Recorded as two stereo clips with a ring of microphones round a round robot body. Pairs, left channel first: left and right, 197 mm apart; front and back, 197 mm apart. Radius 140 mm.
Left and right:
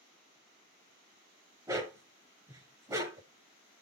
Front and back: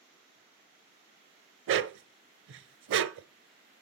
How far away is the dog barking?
About 0.5 m.